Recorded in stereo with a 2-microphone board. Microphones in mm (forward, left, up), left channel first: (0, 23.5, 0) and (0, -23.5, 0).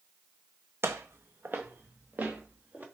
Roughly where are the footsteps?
Right.